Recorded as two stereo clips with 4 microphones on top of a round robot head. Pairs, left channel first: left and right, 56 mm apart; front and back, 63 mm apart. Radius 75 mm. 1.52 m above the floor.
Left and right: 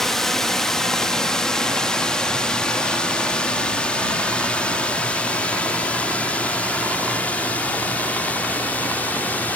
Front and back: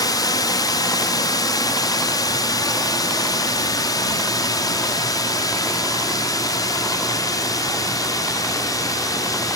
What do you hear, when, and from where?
0.0 s a drone: 5° left; by 9.6 s 25° left